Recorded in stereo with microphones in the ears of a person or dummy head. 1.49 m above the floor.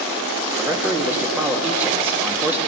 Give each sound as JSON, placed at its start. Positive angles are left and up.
{"t": 0.6, "sound": "a man speaking", "side_deg": -10, "distance_m": 3.0}